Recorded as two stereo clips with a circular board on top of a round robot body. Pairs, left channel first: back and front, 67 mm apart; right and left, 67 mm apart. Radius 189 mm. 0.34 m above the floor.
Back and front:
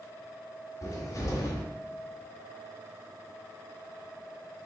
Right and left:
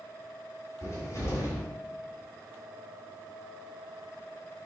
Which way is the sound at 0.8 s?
135° right.